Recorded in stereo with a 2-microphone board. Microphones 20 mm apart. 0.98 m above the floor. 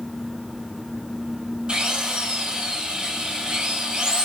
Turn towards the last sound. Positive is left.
turn(degrees=-60)  # may be behind; listen again after turning